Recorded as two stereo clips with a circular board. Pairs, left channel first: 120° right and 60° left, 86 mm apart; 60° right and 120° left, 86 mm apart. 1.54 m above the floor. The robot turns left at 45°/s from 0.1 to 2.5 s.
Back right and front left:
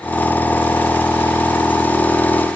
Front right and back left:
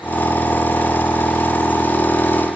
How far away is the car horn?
No car horn in this recording.